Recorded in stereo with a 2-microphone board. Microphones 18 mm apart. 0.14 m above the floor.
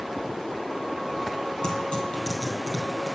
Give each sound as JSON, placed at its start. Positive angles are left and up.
{"t": 1.6, "sound": "tearing paper", "side_deg": 55, "distance_m": 4.0}